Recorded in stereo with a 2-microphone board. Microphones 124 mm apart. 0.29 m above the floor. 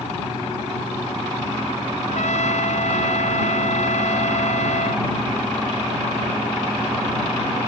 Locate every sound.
2.0 s a trumpet: 70° left (ahead or behind)